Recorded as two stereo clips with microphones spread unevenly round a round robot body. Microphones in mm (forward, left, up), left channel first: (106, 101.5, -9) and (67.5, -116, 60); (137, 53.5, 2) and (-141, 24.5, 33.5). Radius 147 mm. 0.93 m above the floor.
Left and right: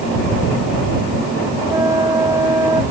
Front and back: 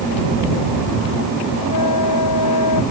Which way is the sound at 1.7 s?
25° right.